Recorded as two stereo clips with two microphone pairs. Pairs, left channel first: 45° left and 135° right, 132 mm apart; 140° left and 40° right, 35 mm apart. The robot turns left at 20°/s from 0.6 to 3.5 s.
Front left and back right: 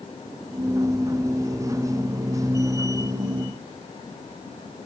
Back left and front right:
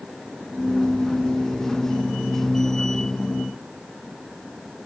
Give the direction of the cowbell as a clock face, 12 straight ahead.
I don't hear a cowbell.